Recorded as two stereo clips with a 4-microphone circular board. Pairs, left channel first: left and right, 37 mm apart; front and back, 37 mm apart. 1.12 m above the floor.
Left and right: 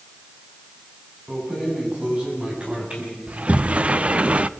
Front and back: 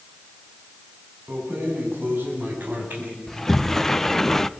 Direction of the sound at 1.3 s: 160° right.